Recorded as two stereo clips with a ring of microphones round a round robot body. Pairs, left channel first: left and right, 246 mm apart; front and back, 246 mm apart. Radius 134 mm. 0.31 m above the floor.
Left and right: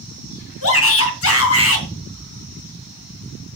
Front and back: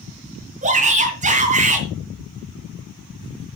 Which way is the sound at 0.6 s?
115° left.